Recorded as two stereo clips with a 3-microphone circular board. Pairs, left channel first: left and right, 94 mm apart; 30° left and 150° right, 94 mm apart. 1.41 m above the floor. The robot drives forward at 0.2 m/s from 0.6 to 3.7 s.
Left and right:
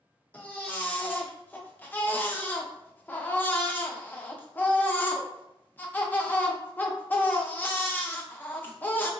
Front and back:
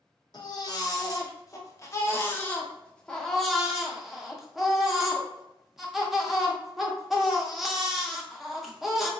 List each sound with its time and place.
0.3 s a baby crying: 20° left, 0.7 m; by 9.1 s 130° left, 0.6 m